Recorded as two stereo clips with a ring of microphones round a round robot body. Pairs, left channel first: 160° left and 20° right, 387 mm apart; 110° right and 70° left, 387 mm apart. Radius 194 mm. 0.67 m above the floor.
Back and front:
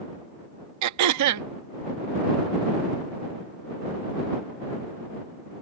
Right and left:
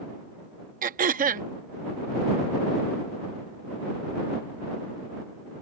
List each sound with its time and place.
0.8 s throat clearing: 5° left